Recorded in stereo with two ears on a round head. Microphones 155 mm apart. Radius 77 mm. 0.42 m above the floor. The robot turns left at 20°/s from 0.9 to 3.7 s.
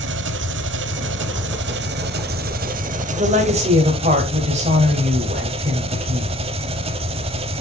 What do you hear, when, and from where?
0.0 s an engine running: 90° right, 0.9 m; by 7.6 s 145° right, 0.9 m
3.1 s a woman speaking: 35° right (ahead or behind), 2.5 m; by 6.3 s 45° right (ahead or behind), 2.5 m